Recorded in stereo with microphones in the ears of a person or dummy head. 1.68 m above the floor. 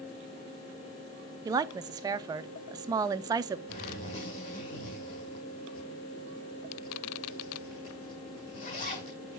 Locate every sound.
1.4 s a woman speaking: 20° right (ahead or behind), 0.5 m
3.7 s a zipper: 40° left (ahead or behind), 6.5 m